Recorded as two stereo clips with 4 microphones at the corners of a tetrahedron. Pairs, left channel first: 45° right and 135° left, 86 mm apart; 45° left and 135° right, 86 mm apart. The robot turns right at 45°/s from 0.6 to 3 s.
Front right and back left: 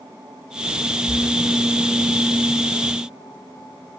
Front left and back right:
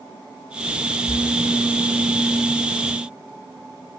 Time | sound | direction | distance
1.1 | a splash | 115° left | 4.5 m